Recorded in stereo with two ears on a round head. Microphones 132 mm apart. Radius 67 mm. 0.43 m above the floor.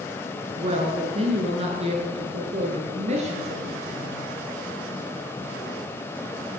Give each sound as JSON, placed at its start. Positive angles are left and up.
{"t": 0.6, "sound": "a woman speaking", "side_deg": -35, "distance_m": 5.5}